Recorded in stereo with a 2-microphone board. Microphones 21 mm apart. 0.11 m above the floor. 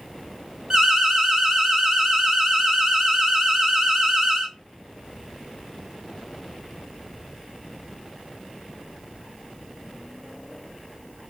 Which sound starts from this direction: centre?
An alarm, at 0.7 s.